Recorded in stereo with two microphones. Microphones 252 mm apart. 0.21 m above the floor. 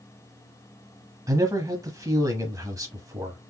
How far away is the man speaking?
About 1.0 m.